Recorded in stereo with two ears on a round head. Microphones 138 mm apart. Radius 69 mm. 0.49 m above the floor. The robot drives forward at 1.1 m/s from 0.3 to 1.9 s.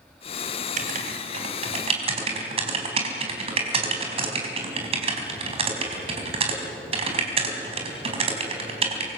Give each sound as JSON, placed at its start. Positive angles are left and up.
{"t": 0.8, "sound": "writing", "side_deg": -55, "distance_m": 3.5}